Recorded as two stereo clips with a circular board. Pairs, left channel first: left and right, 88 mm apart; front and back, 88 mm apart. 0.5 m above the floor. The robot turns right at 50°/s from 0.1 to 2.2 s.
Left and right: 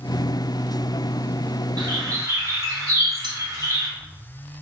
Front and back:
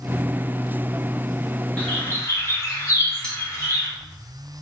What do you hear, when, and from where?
1.8 s a bird: 70° right, 0.9 m; by 3.9 s 50° right, 0.9 m
3.2 s a bell: 80° right, 0.9 m